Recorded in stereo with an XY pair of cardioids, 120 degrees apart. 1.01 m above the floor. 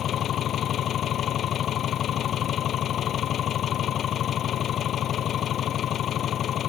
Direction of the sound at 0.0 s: 50° left.